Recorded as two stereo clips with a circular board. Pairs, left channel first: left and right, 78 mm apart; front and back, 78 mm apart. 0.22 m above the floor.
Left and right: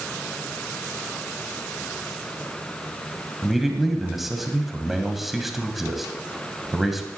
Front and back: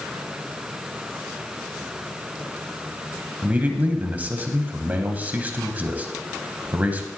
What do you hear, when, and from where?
3.4 s a man speaking: 170° right, 1.2 m